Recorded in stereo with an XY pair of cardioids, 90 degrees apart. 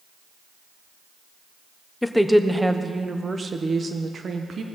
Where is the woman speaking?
10° left, 0.9 m; by 4.7 s 50° right, 1.5 m.